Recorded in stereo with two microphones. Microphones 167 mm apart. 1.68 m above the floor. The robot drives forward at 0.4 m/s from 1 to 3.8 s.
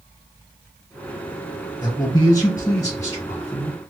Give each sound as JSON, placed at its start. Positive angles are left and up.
{"t": 1.8, "sound": "a man speaking", "side_deg": 25, "distance_m": 1.3}